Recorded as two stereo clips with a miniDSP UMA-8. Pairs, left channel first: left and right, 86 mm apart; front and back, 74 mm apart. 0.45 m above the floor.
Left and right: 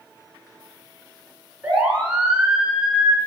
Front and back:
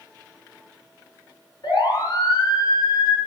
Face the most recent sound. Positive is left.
turn(degrees=-10)